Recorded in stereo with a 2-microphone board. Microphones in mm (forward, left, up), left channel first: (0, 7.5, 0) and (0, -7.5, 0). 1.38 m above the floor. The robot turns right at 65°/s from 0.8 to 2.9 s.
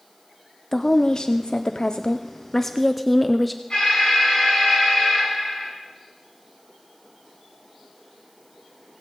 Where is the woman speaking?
40° left, 0.5 m; by 3.6 s straight behind, 0.5 m.